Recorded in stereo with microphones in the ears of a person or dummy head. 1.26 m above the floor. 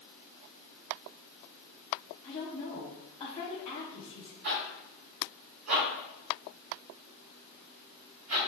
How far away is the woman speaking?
About 0.9 m.